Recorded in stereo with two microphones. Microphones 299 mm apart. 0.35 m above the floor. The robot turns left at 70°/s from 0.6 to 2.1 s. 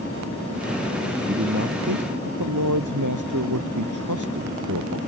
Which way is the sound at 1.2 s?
30° right.